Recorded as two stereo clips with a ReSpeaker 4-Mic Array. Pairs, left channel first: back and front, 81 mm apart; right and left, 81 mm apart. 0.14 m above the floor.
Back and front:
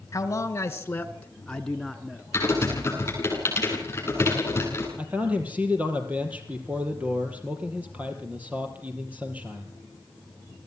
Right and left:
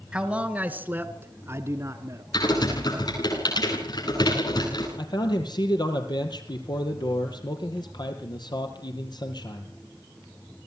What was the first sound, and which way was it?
A man speaking, 165° left.